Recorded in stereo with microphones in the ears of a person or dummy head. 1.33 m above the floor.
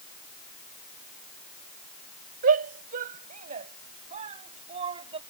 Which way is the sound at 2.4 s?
55° right (ahead or behind).